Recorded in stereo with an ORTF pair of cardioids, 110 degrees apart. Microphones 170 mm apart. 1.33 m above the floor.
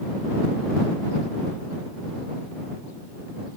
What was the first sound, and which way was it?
Only background noise.